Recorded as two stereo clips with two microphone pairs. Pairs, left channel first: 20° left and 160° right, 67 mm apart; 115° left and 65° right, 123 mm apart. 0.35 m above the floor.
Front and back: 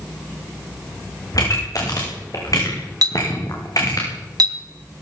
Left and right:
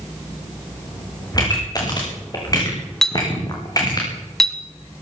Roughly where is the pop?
Ahead left.